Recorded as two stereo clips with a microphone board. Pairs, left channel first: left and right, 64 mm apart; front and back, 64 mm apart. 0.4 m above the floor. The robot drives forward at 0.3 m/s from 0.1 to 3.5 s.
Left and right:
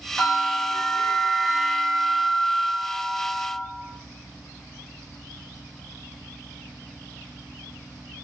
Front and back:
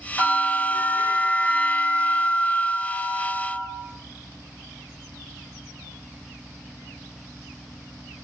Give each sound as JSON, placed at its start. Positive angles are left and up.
{"t": 0.2, "sound": "a bell", "azimuth_deg": -25, "distance_m": 1.7}